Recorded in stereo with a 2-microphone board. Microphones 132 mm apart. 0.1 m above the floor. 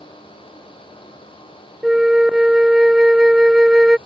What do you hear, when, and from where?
1.8 s a flute: 5° right (ahead or behind)